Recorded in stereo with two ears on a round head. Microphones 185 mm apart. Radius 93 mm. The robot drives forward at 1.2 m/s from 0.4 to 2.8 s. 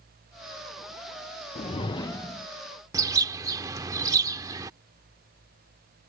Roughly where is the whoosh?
Left.